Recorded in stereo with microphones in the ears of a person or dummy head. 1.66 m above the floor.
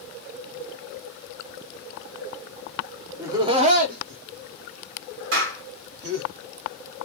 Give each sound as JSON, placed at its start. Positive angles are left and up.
{"t": 3.2, "sound": "laughter", "side_deg": -10, "distance_m": 0.8}
{"t": 5.3, "sound": "a clap", "side_deg": -75, "distance_m": 1.8}